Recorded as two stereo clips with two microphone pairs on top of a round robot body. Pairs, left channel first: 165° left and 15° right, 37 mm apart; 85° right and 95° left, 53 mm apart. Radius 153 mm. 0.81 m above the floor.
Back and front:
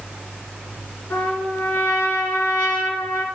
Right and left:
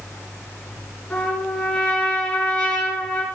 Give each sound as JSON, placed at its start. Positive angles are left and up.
{"t": 1.1, "sound": "a trumpet", "azimuth_deg": -160, "distance_m": 2.0}